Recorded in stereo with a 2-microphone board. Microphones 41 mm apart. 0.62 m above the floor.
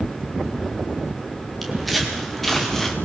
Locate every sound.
1.6 s footsteps: centre (ahead or behind), 6 m; by 3.0 s 10° left (ahead or behind), 4 m